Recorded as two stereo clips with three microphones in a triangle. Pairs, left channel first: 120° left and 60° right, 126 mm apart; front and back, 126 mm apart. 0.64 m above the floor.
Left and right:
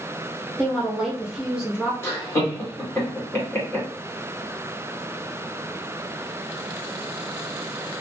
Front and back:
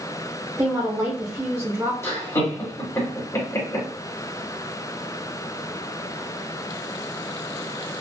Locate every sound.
0.6 s a woman speaking: 140° right, 0.7 m
2.0 s laughter: 55° left, 1.7 m